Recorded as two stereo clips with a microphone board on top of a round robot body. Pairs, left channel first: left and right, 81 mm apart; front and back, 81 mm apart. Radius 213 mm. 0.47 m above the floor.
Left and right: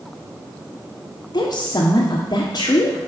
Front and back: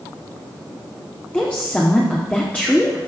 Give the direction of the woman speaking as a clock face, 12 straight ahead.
10 o'clock.